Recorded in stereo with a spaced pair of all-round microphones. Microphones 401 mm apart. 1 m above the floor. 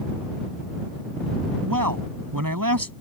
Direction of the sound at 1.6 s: 55° right (ahead or behind).